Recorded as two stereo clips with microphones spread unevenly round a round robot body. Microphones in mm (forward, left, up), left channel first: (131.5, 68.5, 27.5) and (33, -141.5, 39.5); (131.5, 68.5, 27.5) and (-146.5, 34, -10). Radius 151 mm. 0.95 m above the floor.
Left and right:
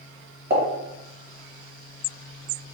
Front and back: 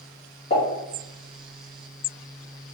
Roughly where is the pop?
Ahead right.